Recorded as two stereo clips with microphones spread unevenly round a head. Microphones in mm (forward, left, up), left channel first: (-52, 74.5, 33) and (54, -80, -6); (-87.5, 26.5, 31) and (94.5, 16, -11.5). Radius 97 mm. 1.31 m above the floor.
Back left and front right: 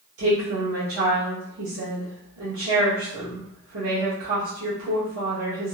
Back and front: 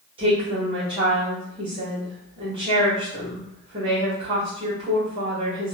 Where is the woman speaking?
70° right, 1.3 m.